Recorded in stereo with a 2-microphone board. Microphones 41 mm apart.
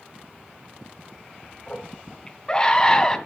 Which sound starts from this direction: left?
A scream, at 1.7 s.